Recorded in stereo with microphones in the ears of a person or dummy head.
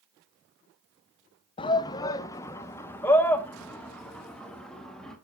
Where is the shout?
25° left (ahead or behind), 0.7 m; by 5.2 s 5° left (ahead or behind), 2.5 m.